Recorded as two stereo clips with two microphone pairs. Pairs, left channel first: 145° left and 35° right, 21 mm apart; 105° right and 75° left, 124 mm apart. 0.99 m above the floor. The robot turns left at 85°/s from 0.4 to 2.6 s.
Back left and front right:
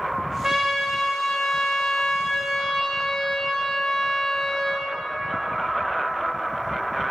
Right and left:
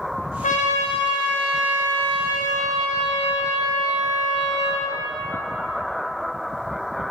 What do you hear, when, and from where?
0.4 s a trumpet: 100° right, 0.9 m; by 4.9 s 75° left, 0.9 m